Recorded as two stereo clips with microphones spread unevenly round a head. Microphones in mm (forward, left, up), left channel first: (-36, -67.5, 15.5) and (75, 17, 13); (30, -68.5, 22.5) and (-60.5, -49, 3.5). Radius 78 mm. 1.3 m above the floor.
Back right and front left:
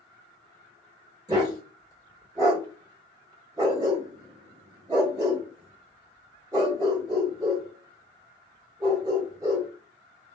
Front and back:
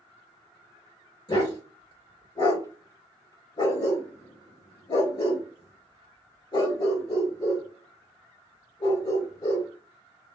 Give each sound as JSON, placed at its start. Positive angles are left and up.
{"t": 1.3, "sound": "a dog barking", "azimuth_deg": -25, "distance_m": 1.5}